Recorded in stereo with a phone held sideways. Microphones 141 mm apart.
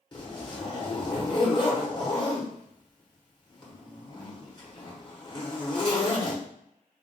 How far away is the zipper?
About 1.1 m.